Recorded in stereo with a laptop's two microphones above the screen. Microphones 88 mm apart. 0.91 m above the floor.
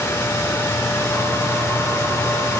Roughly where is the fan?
Left.